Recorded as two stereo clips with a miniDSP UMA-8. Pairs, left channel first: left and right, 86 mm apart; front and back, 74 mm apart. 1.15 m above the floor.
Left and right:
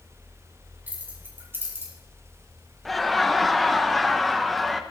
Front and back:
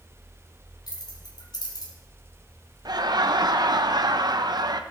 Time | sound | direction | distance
0.9 | keys jangling | 20° right | 4.5 m
2.9 | laughter | straight behind | 1.0 m